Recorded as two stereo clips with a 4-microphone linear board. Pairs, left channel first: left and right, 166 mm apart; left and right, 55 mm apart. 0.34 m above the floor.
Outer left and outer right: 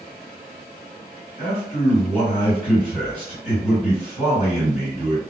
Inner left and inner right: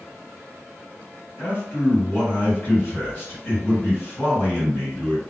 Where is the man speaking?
45° left (ahead or behind), 2.0 m.